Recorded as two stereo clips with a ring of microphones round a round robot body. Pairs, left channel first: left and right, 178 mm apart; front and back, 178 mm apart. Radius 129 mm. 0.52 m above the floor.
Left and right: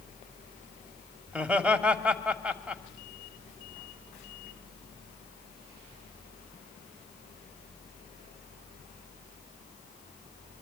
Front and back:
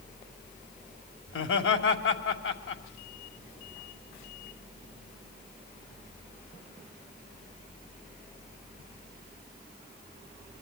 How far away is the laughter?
About 2.5 m.